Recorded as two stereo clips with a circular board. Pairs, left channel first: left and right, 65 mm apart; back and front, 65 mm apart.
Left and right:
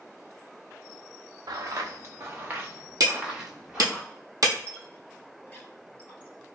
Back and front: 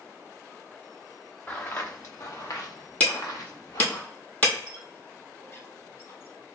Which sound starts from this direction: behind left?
A squeak, at 4.7 s.